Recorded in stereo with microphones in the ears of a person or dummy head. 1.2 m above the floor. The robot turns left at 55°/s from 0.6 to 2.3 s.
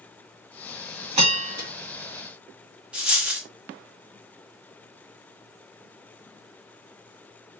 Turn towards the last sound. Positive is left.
turn(degrees=0)  # may be behind; listen again after turning